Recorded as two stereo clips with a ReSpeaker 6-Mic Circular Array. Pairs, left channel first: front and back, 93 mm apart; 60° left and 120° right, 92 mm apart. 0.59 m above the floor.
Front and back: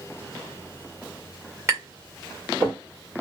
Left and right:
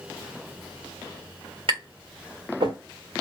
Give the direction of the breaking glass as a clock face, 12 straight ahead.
I don't hear breaking glass.